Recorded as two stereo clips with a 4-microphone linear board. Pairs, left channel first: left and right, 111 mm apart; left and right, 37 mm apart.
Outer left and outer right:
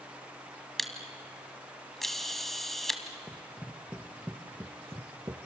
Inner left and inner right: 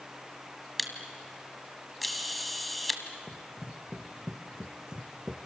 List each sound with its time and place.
0.8 s a camera shutter: centre (ahead or behind), 1.7 m
3.3 s running footsteps: 10° left (ahead or behind), 2 m; by 5.4 s 35° right (ahead or behind), 1.7 m